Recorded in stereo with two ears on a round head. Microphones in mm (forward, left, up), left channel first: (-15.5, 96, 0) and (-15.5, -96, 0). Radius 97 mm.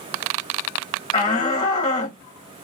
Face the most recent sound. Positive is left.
turn(degrees=15)  # may be behind; listen again after turning